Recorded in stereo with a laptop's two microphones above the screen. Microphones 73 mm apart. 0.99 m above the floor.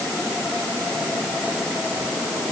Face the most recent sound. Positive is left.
No sound to turn to.